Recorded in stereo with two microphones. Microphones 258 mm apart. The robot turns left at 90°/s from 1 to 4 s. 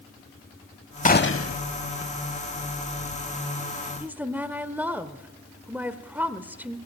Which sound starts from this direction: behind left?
A gunshot, at 1.1 s.